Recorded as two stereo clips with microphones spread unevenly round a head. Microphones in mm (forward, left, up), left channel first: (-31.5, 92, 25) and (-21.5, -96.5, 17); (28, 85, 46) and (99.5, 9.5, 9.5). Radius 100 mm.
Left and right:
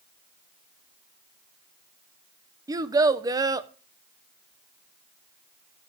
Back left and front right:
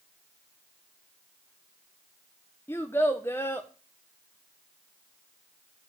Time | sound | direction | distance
2.7 | a child speaking | 160° right | 0.6 m